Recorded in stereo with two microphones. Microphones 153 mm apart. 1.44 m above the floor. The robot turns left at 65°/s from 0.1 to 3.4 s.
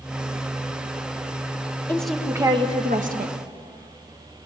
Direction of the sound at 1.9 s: 15° left.